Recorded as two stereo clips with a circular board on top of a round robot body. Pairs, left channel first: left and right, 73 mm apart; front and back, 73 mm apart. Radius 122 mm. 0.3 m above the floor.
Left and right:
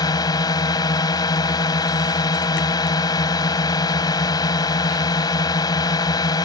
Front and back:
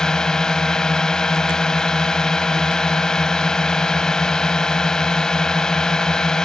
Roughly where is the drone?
Left.